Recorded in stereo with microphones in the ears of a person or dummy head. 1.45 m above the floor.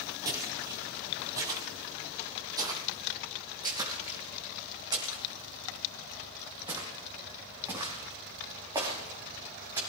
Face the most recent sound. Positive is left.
turn(degrees=-15)  # may be behind; listen again after turning